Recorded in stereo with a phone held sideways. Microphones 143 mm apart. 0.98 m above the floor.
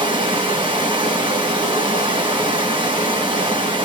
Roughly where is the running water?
Right.